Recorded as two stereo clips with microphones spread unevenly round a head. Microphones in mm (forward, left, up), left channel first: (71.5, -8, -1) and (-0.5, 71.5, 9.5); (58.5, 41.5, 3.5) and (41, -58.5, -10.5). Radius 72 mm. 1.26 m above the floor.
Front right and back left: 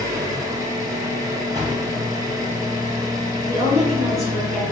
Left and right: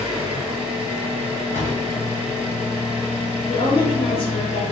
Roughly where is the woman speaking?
Ahead left.